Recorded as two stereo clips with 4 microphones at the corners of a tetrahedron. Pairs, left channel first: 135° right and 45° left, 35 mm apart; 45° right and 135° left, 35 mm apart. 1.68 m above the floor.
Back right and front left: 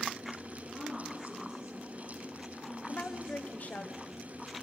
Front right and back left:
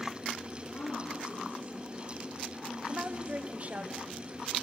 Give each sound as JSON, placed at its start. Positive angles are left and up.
{"t": 0.7, "sound": "a woman speaking", "azimuth_deg": -40, "distance_m": 3.5}
{"t": 2.9, "sound": "a woman speaking", "azimuth_deg": 180, "distance_m": 1.0}